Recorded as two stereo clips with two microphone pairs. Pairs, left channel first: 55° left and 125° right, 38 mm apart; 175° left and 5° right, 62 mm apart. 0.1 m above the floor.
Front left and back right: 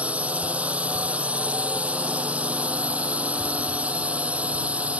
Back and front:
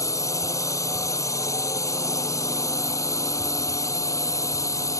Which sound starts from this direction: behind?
A drone, at 0.0 s.